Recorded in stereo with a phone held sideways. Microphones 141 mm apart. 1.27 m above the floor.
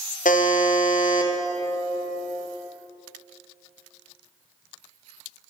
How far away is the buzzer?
About 0.6 m.